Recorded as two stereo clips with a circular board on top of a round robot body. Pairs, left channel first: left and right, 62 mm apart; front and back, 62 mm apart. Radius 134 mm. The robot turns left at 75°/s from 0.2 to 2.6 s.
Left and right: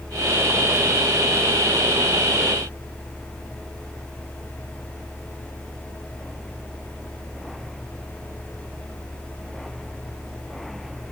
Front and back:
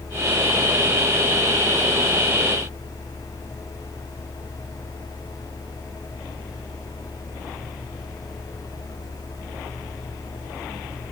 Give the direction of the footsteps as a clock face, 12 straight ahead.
No footsteps in this recording.